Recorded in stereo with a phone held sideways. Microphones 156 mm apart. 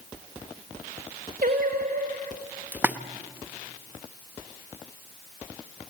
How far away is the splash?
About 0.7 m.